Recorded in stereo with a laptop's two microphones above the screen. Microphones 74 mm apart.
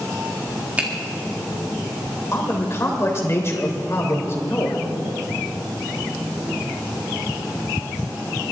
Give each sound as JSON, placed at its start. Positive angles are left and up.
{"t": 0.8, "sound": "a finger snap", "side_deg": -20, "distance_m": 1.7}
{"t": 2.3, "sound": "a man speaking", "side_deg": 40, "distance_m": 3.0}